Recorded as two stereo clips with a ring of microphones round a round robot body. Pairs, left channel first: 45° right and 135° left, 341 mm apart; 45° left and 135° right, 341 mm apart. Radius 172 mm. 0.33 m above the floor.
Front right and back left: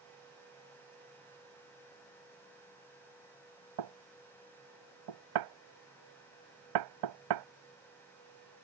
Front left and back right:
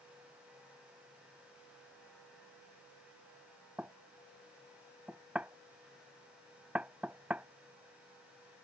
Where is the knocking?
140° left.